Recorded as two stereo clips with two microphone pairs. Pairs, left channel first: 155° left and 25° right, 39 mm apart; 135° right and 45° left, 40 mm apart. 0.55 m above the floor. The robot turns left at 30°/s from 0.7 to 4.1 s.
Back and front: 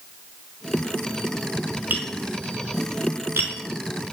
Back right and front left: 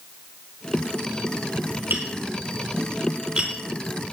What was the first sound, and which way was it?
Tapping, 15° left.